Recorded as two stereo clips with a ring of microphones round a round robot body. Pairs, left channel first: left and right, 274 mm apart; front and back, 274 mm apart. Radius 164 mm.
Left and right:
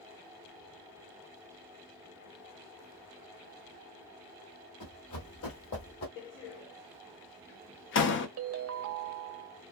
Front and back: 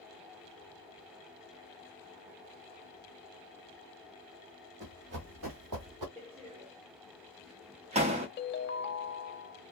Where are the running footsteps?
115° left, 1.3 m; by 6.1 s 150° left, 1.3 m.